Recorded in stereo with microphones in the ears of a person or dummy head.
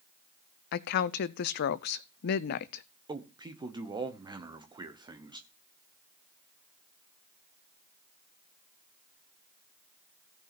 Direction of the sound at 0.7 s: 60° left (ahead or behind).